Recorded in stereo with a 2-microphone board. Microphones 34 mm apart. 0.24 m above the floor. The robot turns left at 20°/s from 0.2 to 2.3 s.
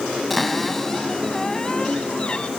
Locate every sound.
0.3 s a cupboard door: straight behind, 1.7 m; by 2.5 s 140° left, 1.7 m